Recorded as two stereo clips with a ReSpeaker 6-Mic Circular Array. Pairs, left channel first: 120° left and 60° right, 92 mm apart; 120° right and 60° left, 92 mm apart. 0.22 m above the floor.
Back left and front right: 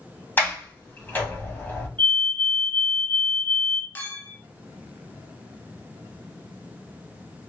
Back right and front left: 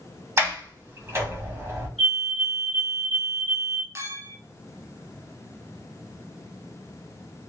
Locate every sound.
0.4 s a sliding door: 80° left, 1.1 m
2.0 s a fire alarm: 135° left, 2 m
4.0 s a clink: 70° left, 0.6 m